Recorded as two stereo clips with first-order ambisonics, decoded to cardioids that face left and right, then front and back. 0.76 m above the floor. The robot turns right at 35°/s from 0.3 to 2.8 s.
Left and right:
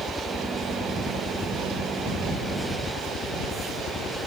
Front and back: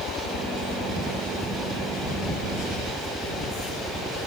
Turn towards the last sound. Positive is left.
turn(degrees=115)